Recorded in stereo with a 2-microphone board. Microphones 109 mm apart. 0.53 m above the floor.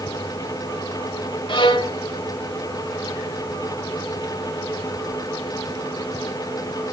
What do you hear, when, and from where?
1.5 s a violin: 50° left (ahead or behind), 1.2 m